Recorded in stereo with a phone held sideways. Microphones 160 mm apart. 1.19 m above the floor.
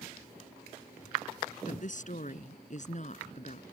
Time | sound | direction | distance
1.6 | a woman speaking | 55° left (ahead or behind) | ?